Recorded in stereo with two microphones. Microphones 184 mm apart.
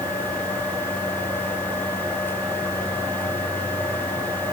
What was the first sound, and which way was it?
Only background noise.